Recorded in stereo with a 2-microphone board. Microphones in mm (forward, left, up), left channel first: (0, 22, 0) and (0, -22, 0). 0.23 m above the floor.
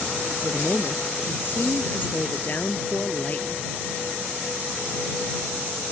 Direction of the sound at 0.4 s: 60° left (ahead or behind).